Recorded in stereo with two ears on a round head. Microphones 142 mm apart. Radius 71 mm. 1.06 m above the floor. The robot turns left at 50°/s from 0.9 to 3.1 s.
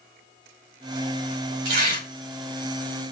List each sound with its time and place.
1.6 s tearing paper: 80° right, 2.5 m; by 2.1 s 75° right (ahead or behind), 2.5 m